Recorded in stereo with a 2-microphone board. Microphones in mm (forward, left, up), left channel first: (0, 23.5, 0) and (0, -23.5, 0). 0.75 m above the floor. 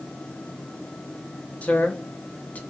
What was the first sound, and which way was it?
A man speaking, 35° left (ahead or behind).